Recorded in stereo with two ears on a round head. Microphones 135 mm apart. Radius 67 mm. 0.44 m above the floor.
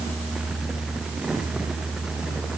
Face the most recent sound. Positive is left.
No sound to turn to.